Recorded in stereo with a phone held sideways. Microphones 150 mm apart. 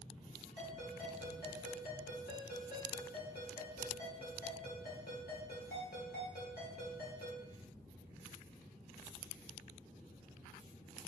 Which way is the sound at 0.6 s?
85° left.